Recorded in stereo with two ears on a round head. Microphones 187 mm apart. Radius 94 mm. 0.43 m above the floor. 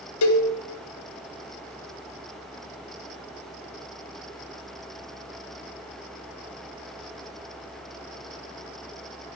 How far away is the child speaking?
No child speaking in this recording.